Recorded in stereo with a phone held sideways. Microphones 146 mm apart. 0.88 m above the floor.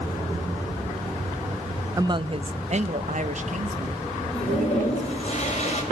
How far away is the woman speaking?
About 0.6 m.